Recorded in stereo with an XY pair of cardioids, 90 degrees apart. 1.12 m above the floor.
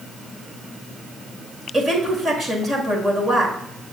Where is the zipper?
I don't hear a zipper.